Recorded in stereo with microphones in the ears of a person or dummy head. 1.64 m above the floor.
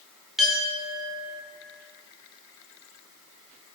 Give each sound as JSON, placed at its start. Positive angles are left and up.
{"t": 0.4, "sound": "a clink", "side_deg": 0, "distance_m": 0.9}